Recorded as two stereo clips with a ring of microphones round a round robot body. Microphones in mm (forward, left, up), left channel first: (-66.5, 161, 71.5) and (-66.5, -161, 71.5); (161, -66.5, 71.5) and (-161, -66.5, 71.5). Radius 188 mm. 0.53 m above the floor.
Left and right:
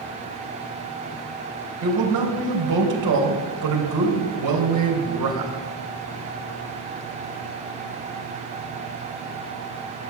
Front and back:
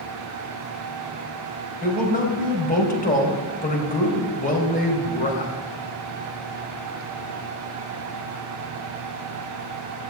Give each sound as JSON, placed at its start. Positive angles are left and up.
{"t": 1.8, "sound": "a man speaking", "azimuth_deg": -65, "distance_m": 3.5}